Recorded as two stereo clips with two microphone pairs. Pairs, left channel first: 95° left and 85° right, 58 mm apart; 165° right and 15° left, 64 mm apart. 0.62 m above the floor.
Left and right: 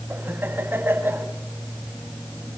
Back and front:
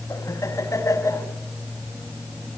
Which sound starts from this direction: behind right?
Laughter, at 0.1 s.